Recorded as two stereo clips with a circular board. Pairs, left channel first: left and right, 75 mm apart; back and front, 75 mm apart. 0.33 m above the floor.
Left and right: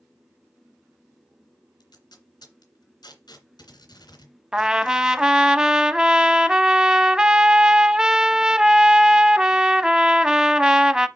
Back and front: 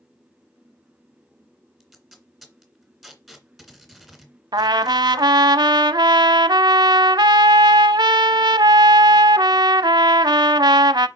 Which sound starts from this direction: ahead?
A trumpet, at 4.5 s.